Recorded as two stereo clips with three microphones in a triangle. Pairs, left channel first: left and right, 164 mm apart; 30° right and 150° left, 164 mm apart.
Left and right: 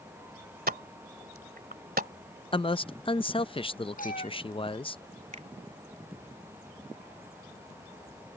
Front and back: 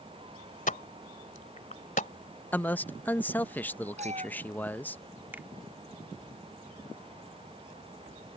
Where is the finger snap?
130° right.